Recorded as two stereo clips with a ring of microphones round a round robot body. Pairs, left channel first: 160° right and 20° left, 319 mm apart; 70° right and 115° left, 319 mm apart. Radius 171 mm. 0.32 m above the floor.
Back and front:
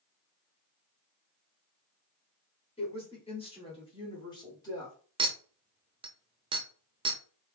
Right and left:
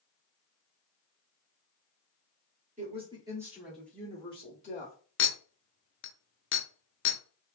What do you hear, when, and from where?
2.8 s a woman speaking: 150° left, 1.6 m; by 5.0 s 85° right, 1.6 m
5.2 s a clink: 45° right, 0.5 m